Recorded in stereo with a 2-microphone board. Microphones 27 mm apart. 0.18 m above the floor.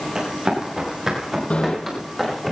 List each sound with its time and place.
0.1 s running footsteps: 25° right (ahead or behind), 8.5 m; by 2.5 s 5° right (ahead or behind), 9 m
1.5 s a bicycle bell: 50° left (ahead or behind), 4 m